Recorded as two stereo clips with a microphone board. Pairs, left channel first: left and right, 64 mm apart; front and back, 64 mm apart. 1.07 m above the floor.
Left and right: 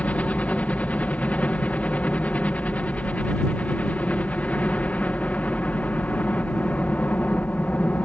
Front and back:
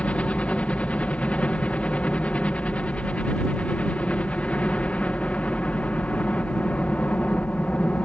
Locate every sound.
0.0 s a helicopter: 45° left